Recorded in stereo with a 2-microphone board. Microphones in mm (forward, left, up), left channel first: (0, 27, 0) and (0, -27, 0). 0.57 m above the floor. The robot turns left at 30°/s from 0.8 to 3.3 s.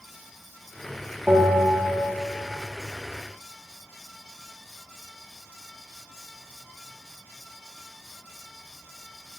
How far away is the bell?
About 1.2 m.